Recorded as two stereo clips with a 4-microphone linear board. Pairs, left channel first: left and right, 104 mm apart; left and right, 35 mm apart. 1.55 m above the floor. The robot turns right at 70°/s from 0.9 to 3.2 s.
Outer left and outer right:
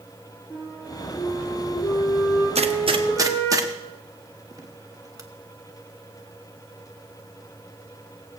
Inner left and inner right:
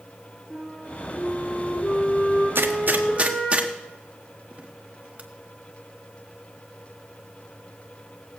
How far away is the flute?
About 8.5 m.